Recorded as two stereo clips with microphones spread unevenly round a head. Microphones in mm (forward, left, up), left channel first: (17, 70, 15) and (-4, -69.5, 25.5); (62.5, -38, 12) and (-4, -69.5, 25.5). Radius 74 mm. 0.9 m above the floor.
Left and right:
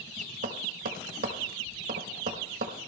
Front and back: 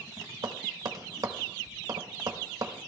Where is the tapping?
115° right, 1.2 m.